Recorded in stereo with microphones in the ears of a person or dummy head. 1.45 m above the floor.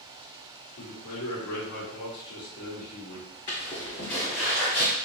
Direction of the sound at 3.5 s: 25° left (ahead or behind).